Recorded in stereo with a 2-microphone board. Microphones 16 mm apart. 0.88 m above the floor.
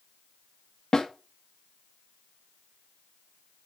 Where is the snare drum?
45° left (ahead or behind), 1.8 m.